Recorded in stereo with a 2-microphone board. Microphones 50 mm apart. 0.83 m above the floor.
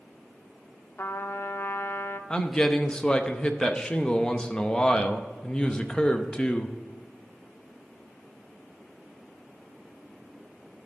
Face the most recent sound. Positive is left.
turn(degrees=15)  # may be behind; listen again after turning